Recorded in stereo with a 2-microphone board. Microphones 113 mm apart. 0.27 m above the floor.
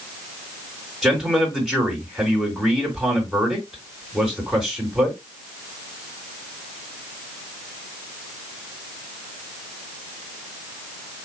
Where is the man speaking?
5° right (ahead or behind), 3.5 m.